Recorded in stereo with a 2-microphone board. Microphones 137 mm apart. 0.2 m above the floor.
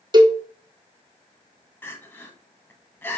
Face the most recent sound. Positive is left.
turn(degrees=15)  # may be behind; listen again after turning